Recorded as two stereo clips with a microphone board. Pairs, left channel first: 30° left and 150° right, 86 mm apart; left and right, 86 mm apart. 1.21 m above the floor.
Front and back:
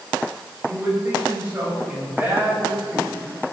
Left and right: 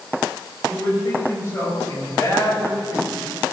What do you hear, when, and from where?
0.6 s a man speaking: 145° left, 5.5 m; by 3.1 s 135° left, 7 m